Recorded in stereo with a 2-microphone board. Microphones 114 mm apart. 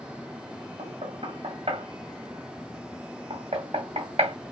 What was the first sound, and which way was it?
Knocking, 65° right (ahead or behind).